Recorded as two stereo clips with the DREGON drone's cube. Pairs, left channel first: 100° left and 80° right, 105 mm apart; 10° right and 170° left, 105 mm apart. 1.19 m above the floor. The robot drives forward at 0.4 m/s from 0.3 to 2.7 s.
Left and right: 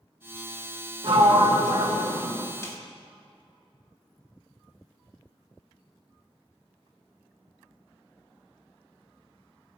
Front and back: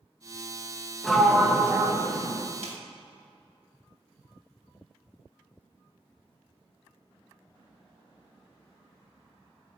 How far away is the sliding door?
About 0.7 m.